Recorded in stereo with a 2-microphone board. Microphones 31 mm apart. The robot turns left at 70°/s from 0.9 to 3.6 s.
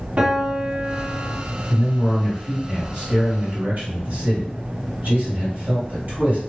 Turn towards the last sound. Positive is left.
turn(degrees=-65)